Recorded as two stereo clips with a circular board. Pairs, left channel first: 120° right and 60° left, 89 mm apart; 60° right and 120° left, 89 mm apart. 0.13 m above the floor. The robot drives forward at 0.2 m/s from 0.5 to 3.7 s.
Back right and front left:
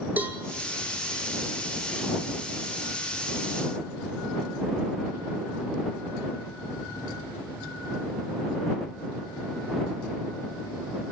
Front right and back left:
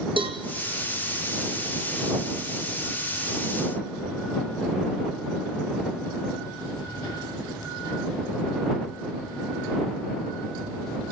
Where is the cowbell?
130° left, 1.8 m.